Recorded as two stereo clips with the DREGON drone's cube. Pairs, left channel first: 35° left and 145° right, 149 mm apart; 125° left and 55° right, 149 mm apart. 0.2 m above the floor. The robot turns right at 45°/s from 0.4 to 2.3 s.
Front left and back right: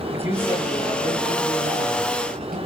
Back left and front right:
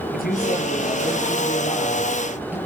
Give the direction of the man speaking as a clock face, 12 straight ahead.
7 o'clock.